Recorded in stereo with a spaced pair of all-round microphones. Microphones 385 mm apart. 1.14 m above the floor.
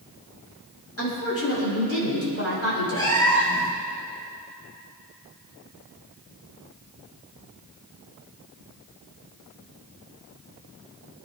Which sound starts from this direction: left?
A woman speaking, at 1.0 s.